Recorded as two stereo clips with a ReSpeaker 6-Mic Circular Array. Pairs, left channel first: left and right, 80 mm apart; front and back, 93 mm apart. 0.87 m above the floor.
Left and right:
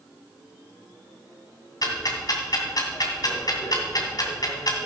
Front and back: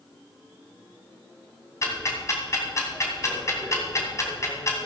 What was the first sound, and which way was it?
Ticking, 55° left.